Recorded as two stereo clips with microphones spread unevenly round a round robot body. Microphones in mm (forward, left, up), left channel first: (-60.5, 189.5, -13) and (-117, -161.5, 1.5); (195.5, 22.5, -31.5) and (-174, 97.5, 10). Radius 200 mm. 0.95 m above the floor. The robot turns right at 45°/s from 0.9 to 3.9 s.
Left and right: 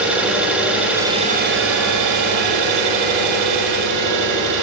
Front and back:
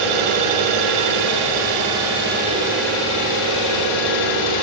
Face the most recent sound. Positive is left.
turn(degrees=-50)